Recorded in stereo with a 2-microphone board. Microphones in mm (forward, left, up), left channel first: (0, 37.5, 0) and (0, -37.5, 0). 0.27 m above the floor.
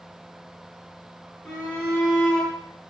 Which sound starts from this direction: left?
A shout, at 1.4 s.